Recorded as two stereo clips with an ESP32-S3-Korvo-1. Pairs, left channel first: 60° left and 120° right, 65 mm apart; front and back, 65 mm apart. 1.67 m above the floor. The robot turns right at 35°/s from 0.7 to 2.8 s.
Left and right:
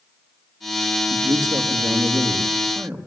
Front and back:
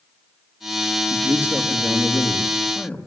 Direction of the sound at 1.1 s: 130° right.